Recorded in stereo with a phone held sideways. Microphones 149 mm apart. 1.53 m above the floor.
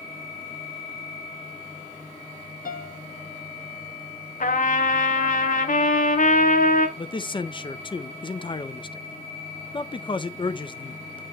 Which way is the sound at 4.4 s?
65° left (ahead or behind).